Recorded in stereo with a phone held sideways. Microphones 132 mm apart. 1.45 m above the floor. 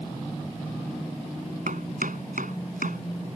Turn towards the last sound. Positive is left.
turn(degrees=-90)